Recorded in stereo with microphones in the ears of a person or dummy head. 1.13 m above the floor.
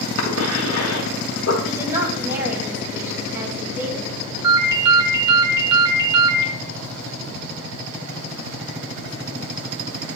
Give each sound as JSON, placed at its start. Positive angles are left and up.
{"t": 0.2, "sound": "a cough", "side_deg": 70, "distance_m": 1.4}
{"t": 1.6, "sound": "a woman speaking", "side_deg": -10, "distance_m": 2.0}
{"t": 4.4, "sound": "a ringtone", "side_deg": -25, "distance_m": 1.4}